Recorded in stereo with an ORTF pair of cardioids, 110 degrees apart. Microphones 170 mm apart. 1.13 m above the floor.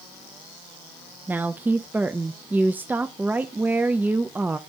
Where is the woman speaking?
10° right, 0.5 m.